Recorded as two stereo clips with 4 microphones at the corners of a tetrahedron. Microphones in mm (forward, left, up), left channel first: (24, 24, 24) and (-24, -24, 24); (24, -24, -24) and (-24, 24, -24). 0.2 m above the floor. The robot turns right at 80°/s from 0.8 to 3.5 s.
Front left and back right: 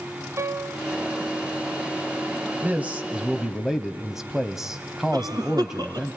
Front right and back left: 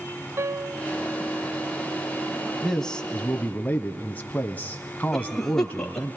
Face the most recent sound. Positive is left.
turn(degrees=-125)